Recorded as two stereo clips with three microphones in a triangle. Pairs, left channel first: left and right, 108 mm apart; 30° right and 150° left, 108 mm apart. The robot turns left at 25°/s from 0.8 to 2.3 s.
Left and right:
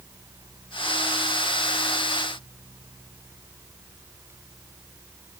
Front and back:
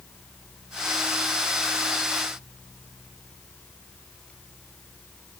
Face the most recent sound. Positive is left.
No sound to turn to.